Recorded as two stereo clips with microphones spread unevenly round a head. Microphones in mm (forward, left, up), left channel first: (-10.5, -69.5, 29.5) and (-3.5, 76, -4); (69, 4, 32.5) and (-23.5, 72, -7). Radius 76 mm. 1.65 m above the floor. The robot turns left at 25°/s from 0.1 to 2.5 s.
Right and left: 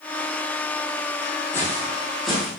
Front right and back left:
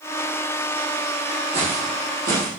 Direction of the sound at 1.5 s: 155° right.